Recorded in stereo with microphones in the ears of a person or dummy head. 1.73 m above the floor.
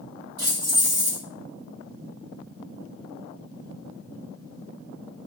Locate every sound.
0.4 s keys jangling: 25° right (ahead or behind), 2 m